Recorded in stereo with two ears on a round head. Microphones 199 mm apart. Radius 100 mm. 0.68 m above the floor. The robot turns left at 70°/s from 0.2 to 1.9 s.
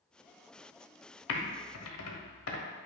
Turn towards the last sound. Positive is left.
turn(degrees=70)  # may be behind; listen again after turning